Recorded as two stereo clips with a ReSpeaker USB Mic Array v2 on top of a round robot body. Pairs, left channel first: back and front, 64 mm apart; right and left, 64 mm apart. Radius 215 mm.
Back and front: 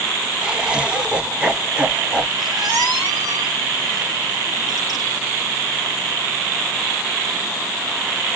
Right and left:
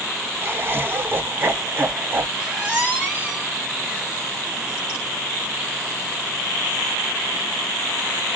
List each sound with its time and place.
0.4 s laughter: 65° left, 1.1 m
2.4 s a squeak: 15° left, 4 m